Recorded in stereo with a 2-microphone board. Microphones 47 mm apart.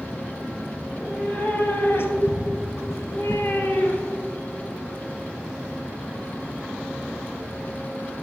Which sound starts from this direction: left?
A cat meowing, at 0.8 s.